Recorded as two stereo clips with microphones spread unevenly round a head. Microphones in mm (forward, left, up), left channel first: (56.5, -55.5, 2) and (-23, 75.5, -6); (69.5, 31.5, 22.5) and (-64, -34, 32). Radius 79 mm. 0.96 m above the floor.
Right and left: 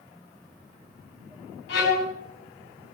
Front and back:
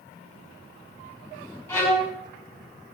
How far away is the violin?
About 5.5 m.